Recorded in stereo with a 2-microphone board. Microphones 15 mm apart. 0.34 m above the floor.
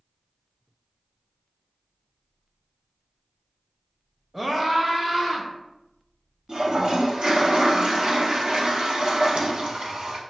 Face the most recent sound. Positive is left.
turn(degrees=-60)  # may be behind; listen again after turning